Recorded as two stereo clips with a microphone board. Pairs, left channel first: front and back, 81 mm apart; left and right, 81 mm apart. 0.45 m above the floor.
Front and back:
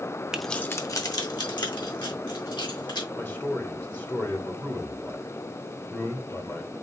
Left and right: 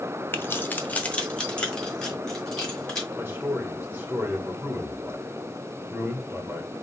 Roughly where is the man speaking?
Ahead right.